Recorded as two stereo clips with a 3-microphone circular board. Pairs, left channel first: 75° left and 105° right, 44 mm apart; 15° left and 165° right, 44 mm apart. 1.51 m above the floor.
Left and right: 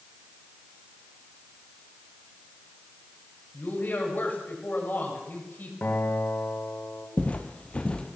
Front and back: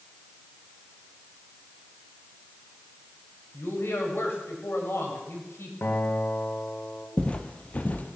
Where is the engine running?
No engine running in this recording.